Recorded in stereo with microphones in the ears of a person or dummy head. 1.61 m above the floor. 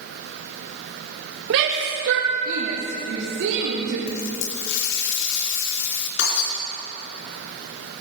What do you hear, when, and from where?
1.5 s a shout: 70° right (ahead or behind), 2 m; by 4.0 s 65° right (ahead or behind), 4 m
4.1 s a running tap: 65° left (ahead or behind), 2.5 m
6.2 s breaking glass: 65° left (ahead or behind), 4.5 m